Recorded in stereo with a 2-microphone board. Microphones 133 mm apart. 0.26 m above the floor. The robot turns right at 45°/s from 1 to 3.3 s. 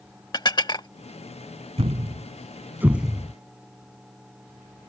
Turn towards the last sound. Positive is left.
turn(degrees=5)  # may be behind; listen again after turning